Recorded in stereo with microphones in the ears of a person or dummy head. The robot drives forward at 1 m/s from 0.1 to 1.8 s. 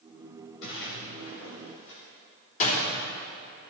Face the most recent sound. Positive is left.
turn(degrees=45)  # may be behind; listen again after turning